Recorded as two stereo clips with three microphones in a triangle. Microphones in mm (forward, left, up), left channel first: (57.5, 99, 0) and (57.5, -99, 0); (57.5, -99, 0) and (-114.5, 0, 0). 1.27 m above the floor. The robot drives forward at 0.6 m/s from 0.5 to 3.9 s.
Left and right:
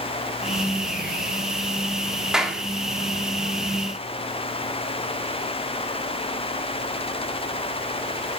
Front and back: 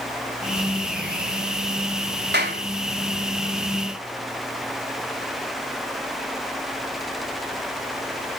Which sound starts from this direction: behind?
A clap, at 2.3 s.